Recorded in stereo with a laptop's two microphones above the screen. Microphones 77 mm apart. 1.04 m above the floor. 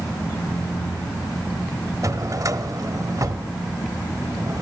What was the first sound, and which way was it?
A drawer, 45° right (ahead or behind).